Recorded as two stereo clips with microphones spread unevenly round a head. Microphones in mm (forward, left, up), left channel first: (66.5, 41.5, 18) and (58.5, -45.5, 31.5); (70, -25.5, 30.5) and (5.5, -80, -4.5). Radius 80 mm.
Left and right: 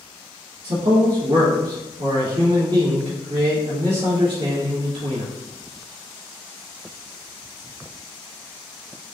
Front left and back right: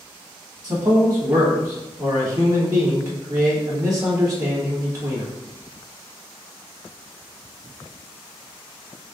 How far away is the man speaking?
About 1.5 m.